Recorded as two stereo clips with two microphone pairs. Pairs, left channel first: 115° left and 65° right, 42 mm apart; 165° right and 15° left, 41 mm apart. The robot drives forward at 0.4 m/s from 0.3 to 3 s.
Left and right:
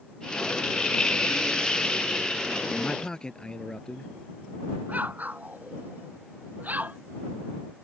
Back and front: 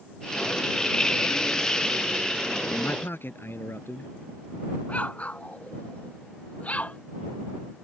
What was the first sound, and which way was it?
A man speaking, 175° right.